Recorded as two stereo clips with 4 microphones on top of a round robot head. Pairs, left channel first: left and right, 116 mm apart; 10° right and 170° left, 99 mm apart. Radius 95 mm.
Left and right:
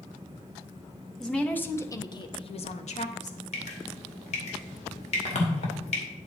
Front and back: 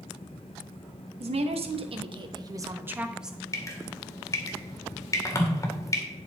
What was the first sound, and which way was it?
A woman speaking, 175° left.